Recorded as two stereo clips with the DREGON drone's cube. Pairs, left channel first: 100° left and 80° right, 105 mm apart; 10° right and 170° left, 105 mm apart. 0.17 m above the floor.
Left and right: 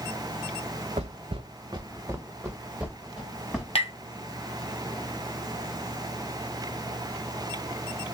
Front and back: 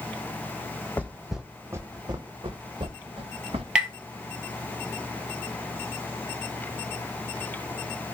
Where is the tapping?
90° left, 0.8 m.